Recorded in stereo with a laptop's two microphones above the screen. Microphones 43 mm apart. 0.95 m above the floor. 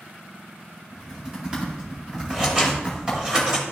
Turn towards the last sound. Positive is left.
turn(degrees=-25)  # may be behind; listen again after turning